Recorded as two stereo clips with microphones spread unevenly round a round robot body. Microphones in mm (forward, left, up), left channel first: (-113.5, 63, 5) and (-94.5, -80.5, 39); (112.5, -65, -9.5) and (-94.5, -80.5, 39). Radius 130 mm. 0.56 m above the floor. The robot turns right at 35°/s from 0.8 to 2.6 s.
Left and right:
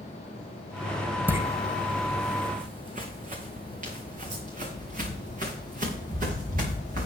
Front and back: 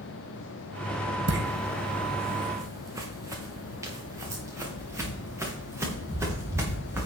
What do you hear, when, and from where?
1.3 s footsteps: 155° right, 1.8 m; by 7.1 s 100° right, 5 m